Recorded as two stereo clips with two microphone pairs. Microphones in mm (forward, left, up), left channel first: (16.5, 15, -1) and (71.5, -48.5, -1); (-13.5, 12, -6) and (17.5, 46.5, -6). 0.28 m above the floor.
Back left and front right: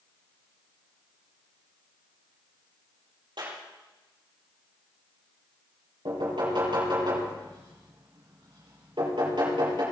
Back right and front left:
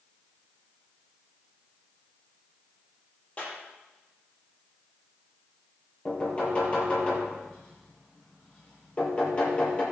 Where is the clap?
70° right, 6.5 m.